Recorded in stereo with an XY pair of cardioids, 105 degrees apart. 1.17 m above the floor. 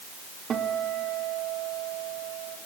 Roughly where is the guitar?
Ahead right.